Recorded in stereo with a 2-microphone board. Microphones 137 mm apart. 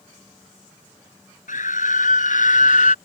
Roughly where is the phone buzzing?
I don't hear a phone buzzing.